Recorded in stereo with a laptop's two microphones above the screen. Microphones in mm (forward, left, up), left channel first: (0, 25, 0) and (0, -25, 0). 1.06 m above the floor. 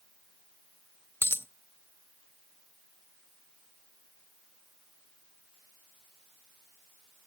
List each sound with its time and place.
1.2 s a dropped coin: 50° left (ahead or behind), 0.6 m